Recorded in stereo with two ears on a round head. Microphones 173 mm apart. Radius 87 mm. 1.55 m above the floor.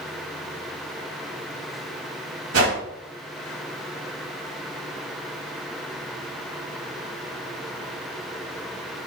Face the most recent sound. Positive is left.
turn(degrees=-85)